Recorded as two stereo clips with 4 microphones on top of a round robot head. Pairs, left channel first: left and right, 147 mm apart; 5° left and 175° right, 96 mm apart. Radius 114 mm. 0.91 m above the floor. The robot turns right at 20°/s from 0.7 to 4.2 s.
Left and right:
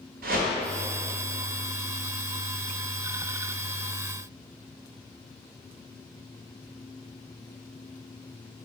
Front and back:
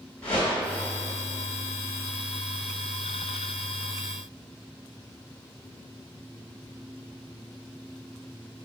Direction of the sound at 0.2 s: 75° right.